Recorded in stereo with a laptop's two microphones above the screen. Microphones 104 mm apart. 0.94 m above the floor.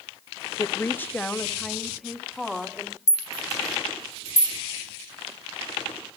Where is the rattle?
30° left (ahead or behind), 1.5 m.